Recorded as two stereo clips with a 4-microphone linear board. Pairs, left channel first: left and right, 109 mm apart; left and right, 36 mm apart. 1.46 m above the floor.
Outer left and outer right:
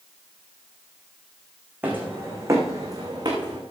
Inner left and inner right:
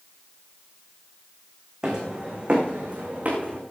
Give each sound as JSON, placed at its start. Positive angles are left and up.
{"t": 1.8, "sound": "footsteps", "side_deg": -15, "distance_m": 3.5}